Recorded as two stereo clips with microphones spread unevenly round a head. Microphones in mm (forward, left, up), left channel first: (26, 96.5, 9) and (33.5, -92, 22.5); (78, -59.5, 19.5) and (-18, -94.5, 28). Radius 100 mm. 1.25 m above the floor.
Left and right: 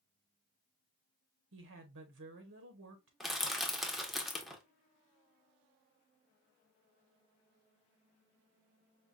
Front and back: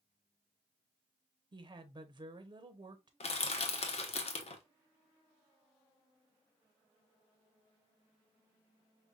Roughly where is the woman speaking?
Right.